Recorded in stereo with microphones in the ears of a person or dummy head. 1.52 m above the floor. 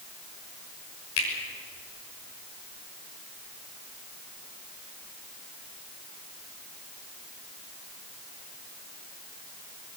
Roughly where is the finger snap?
Left.